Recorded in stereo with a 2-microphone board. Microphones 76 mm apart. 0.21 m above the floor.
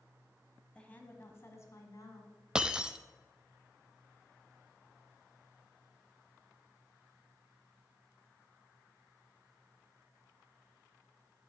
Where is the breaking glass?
10° right (ahead or behind), 0.7 m.